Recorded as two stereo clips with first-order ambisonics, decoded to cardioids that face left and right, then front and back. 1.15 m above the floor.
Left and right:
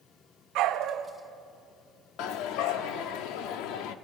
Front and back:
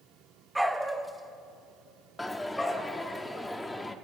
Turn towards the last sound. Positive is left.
turn(degrees=85)